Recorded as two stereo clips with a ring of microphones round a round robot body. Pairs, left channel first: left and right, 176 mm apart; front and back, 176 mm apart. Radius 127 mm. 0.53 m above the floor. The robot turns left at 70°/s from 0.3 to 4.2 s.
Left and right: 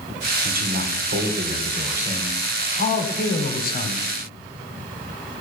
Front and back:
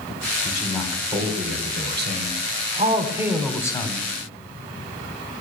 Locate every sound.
0.5 s a man speaking: 60° right, 2.5 m; by 4.1 s 40° left, 2.5 m